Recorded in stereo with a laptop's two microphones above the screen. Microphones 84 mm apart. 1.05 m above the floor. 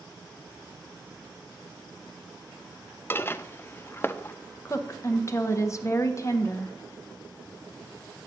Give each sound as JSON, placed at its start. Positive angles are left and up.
{"t": 3.1, "sound": "dishes clattering", "side_deg": 25, "distance_m": 0.6}
{"t": 4.7, "sound": "a woman speaking", "side_deg": 35, "distance_m": 0.8}